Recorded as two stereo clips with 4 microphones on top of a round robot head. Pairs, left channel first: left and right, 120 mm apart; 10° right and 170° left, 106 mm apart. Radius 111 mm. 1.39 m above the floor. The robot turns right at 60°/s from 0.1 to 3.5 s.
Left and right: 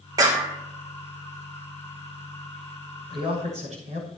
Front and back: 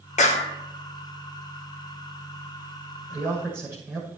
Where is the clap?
25° right, 1.7 m; by 0.5 s straight ahead, 1.7 m.